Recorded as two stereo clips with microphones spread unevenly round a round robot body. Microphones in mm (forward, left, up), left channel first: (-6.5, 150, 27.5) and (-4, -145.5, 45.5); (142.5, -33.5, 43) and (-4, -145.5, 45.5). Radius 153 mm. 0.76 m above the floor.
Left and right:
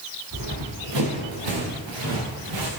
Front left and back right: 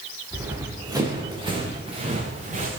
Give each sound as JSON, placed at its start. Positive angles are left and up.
{"t": 0.3, "sound": "running footsteps", "azimuth_deg": -65, "distance_m": 6.0}